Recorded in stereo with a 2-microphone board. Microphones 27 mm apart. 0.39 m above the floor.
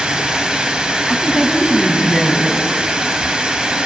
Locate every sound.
0.0 s running water: 40° right (ahead or behind), 2 m
1.1 s a woman speaking: 5° left (ahead or behind), 3 m